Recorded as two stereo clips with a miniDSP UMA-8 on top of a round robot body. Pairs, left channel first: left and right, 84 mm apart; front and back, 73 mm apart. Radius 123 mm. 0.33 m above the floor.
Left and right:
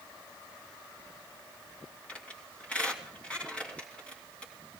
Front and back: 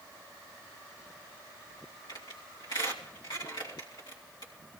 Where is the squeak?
15° left, 3 m.